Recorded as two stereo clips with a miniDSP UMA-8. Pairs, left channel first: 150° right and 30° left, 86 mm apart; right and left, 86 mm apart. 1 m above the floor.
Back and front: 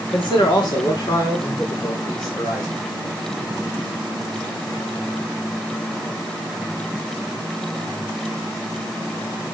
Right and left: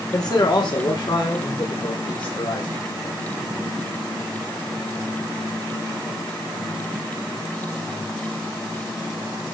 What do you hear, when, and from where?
0.1 s a man speaking: 125° right, 2.5 m; by 3.1 s 110° right, 6.5 m